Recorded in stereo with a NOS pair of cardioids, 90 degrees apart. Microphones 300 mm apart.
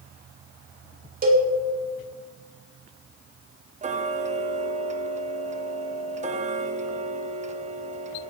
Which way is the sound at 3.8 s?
25° right.